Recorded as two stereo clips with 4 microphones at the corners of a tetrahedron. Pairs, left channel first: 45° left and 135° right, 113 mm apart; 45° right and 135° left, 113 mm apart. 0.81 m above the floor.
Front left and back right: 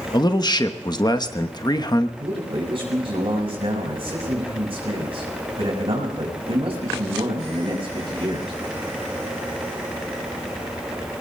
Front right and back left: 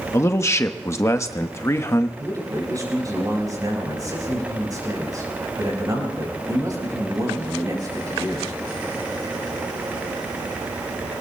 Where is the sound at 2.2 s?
165° right, 5.5 m.